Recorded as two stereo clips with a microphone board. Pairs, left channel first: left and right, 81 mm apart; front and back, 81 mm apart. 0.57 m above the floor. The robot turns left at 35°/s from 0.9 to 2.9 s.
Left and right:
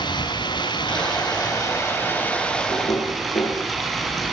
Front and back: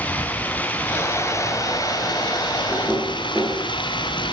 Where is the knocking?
105° left, 10 m; by 3.6 s 100° left, 10 m.